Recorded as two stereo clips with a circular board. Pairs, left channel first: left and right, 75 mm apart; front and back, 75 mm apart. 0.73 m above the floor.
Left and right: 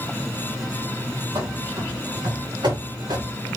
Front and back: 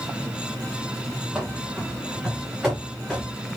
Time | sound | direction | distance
1.4 | running footsteps | 95° right | 3 m